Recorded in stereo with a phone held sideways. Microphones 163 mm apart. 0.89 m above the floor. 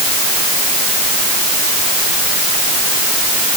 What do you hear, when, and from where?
Only background noise.